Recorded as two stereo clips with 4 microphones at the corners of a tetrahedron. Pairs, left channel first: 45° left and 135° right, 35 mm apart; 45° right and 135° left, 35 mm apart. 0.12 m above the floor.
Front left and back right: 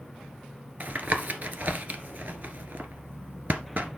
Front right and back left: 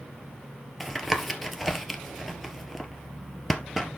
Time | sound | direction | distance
0.8 | tapping | 135° right | 1.4 m